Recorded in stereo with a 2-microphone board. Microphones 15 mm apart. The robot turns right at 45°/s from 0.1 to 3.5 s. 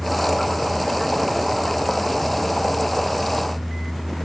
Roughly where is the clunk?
I don't hear a clunk.